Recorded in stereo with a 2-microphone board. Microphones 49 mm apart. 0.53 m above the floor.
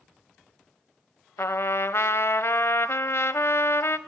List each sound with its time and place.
1.4 s a trumpet: 65° left (ahead or behind), 1.0 m